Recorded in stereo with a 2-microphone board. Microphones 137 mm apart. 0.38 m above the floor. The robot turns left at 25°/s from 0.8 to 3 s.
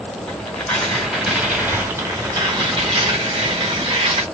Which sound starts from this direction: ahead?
Tearing paper, at 0.3 s.